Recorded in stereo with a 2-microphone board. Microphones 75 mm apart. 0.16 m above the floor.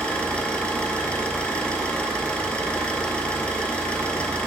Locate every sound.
0.0 s an engine running: 15° left (ahead or behind), 0.7 m